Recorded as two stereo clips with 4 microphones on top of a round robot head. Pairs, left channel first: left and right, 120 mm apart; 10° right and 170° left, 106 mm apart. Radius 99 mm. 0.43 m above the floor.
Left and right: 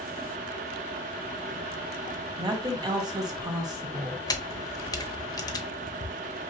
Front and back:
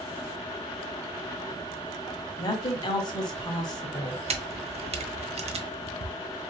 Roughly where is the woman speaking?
Ahead right.